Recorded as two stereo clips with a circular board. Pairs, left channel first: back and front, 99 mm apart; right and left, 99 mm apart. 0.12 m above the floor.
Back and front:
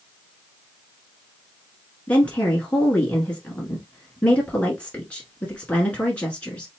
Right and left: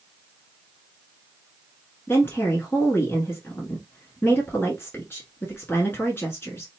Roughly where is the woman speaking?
Behind right.